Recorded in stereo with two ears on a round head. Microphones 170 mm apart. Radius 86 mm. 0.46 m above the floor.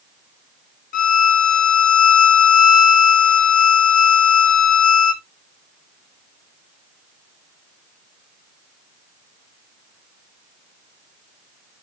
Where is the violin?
45° left (ahead or behind), 0.6 m.